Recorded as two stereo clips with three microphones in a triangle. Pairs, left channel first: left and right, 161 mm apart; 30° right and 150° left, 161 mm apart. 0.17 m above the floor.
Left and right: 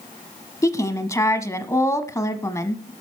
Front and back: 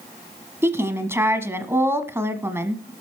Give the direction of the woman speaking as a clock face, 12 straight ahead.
8 o'clock.